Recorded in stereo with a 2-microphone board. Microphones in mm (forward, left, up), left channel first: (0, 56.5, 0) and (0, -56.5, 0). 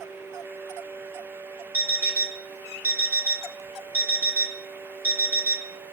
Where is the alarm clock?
15° right (ahead or behind), 1.0 m.